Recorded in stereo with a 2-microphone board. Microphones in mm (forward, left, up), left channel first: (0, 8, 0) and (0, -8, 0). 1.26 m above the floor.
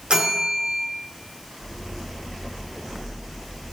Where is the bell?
80° right, 0.6 m.